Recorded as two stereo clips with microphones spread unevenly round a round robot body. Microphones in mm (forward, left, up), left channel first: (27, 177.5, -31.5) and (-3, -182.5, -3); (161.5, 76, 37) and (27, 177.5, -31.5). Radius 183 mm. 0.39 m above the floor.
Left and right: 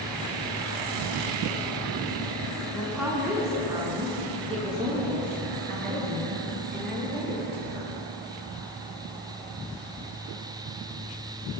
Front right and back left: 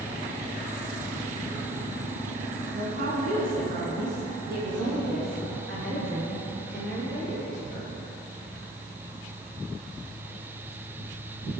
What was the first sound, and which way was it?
A woman speaking, 175° left.